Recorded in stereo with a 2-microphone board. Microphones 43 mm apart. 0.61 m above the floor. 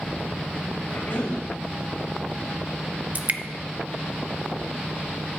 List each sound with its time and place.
0.9 s a cough: 70° left (ahead or behind), 4 m
3.1 s dripping: 40° right (ahead or behind), 0.7 m